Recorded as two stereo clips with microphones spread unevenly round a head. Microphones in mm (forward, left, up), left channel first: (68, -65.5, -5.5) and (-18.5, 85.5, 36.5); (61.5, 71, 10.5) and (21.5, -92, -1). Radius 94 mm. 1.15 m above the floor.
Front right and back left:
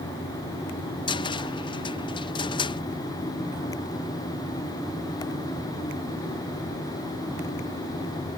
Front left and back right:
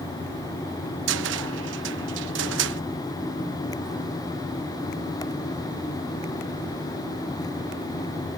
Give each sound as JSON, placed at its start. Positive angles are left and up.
{"t": 1.1, "sound": "a cupboard door", "azimuth_deg": -125}